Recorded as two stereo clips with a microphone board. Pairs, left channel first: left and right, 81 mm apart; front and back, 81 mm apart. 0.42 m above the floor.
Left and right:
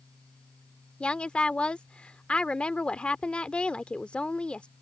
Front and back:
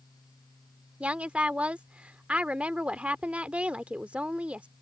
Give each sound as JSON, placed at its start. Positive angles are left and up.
{"t": 1.0, "sound": "a woman speaking", "azimuth_deg": 140}